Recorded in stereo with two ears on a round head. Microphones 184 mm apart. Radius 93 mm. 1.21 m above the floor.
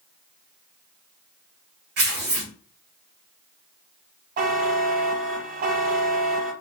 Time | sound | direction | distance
2.0 | tearing paper | 55° right (ahead or behind) | 1.5 m
4.4 | a buzzer | 45° right (ahead or behind) | 0.6 m